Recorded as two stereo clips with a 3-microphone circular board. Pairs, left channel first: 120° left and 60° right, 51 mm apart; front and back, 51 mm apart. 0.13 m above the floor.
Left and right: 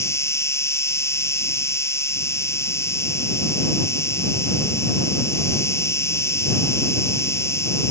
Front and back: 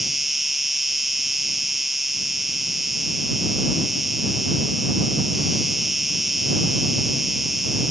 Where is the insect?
95° left.